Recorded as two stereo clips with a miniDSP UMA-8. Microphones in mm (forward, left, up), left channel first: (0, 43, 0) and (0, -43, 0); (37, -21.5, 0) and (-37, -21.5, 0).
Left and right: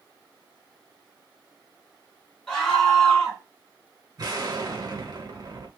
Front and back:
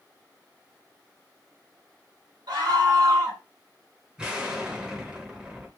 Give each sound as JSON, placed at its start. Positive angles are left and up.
{"t": 2.5, "sound": "a scream", "azimuth_deg": 165, "distance_m": 1.6}
{"t": 4.2, "sound": "an explosion", "azimuth_deg": -105, "distance_m": 0.7}